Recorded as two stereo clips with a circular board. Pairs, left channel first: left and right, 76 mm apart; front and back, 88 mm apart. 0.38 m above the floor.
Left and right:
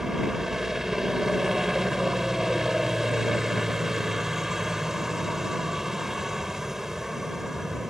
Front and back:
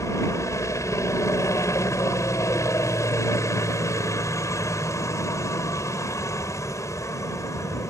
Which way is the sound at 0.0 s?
10° right.